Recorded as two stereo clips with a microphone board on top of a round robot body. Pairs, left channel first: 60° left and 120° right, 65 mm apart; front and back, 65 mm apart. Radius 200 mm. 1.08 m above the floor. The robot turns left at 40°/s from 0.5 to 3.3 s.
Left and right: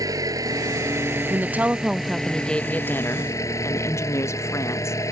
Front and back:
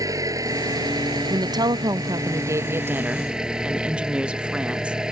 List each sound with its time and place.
0.0 s an engine running: 150° right; by 5.1 s 100° left
1.3 s a woman speaking: 175° right; by 5.0 s 105° left